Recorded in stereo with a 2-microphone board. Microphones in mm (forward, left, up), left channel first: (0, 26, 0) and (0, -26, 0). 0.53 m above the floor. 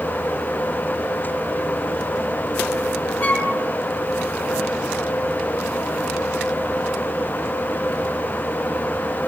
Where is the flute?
35° left (ahead or behind), 3 m.